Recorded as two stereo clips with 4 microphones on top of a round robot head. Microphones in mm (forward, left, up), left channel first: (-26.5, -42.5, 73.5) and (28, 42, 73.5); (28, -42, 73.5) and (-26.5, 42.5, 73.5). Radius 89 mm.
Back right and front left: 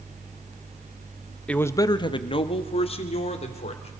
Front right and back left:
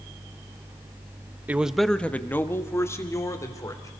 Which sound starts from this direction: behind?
A man speaking, at 1.5 s.